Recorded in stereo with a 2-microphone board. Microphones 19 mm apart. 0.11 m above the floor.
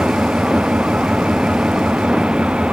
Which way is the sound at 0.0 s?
85° right.